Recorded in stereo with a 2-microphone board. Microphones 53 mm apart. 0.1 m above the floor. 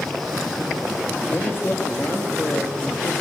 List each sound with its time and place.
1.3 s a man speaking: 40° left (ahead or behind), 2 m